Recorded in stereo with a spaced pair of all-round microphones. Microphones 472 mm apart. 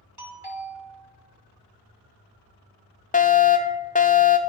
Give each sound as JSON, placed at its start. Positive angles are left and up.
{"t": 0.2, "sound": "a doorbell", "side_deg": -55, "distance_m": 3.0}
{"t": 3.1, "sound": "a fire alarm", "side_deg": 15, "distance_m": 0.7}